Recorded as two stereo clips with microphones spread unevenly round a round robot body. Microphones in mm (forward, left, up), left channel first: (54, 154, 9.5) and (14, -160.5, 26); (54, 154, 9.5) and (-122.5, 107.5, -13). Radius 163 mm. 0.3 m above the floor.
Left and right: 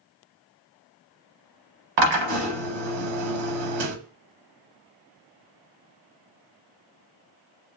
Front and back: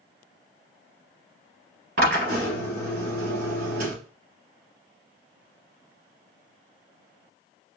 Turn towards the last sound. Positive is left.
turn(degrees=-110)